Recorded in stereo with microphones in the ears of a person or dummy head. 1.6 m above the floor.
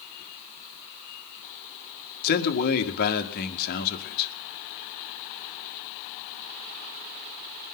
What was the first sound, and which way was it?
A man speaking, 55° left (ahead or behind).